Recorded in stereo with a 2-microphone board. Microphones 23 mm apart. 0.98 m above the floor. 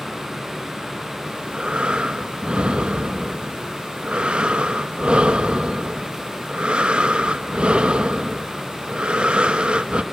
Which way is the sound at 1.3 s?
60° right (ahead or behind).